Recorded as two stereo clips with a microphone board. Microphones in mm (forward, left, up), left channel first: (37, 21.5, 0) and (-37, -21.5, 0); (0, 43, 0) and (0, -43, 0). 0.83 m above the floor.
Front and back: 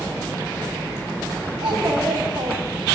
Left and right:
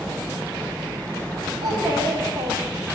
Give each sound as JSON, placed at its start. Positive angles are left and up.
{"t": 1.6, "sound": "a child speaking", "azimuth_deg": -110, "distance_m": 4.5}